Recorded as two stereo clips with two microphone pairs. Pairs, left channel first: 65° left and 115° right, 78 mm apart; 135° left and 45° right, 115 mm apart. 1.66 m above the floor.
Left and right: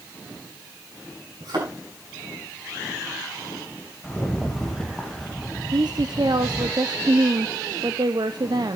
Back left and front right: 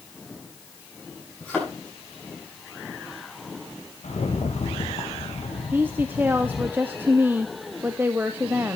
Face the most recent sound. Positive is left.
turn(degrees=-120)